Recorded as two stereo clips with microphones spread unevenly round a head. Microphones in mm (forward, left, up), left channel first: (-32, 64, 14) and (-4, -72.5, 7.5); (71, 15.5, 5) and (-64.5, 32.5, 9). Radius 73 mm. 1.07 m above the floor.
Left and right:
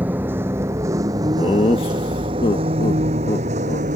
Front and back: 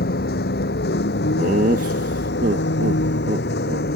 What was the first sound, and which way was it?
A vehicle, straight ahead.